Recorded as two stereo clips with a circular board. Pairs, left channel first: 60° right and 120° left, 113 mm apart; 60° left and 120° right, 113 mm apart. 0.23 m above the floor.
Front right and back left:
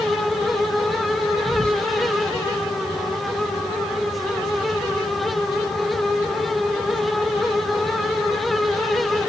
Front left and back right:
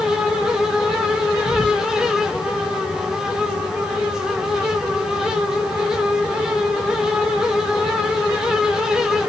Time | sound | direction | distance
1.4 | whispering | 140° right | 2 m